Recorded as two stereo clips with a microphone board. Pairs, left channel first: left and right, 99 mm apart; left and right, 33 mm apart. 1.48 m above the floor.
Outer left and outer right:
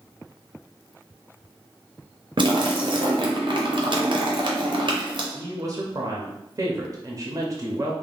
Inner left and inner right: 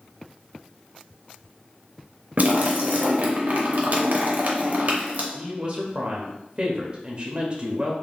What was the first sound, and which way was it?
A splash, 55° right (ahead or behind).